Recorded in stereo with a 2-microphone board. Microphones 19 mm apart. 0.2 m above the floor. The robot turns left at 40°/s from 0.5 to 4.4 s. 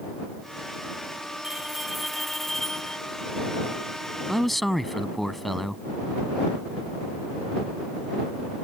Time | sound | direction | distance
1.4 | a bell | 155° right | ?
4.3 | a man speaking | 5° left (ahead or behind) | ?